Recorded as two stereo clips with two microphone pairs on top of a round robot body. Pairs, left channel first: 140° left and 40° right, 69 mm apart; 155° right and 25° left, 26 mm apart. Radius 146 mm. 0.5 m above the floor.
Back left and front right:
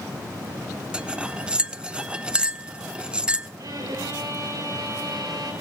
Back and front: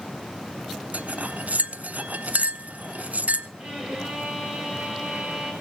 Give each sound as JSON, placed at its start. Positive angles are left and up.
{"t": 0.9, "sound": "cutlery clinking", "azimuth_deg": 30, "distance_m": 1.0}
{"t": 3.6, "sound": "a violin", "azimuth_deg": -15, "distance_m": 8.0}